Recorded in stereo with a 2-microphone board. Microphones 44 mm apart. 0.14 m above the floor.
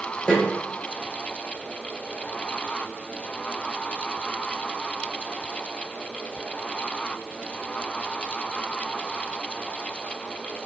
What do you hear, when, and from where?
0.3 s a snare drum: 25° left (ahead or behind), 4.5 m